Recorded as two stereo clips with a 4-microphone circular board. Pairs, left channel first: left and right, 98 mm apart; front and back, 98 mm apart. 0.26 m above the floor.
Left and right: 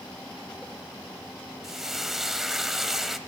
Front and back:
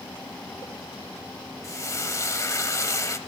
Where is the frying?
5° right, 1.0 m.